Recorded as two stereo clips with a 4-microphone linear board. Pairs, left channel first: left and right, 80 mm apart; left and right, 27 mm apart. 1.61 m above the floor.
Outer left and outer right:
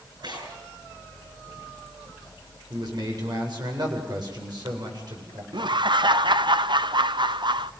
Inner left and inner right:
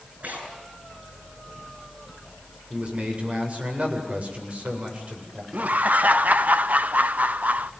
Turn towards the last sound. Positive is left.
turn(degrees=-70)  # may be behind; listen again after turning